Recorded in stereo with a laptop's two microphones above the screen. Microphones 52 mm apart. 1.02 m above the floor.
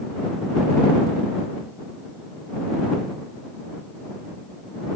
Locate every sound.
Only background noise.